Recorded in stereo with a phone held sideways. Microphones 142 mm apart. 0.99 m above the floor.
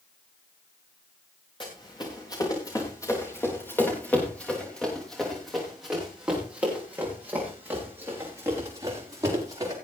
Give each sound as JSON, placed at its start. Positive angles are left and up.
{"t": 1.6, "sound": "running footsteps", "side_deg": 35, "distance_m": 5.5}